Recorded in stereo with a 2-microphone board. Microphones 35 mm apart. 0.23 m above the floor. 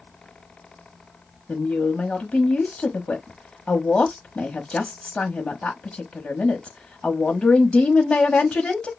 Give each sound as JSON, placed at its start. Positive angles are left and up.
{"t": 1.5, "sound": "a woman speaking", "side_deg": 30, "distance_m": 1.0}